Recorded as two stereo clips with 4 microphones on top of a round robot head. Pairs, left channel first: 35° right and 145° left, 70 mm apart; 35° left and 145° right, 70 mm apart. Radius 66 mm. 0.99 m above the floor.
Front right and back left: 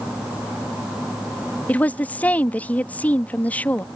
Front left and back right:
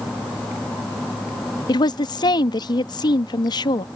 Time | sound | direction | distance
1.7 | a woman speaking | 35° left | ?